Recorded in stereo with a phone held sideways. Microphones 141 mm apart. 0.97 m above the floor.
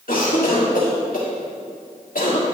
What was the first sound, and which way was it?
A cough, 85° left.